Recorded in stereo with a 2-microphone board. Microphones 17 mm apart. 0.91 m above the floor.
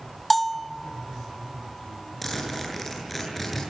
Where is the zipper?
Centre (ahead or behind), 8.5 m.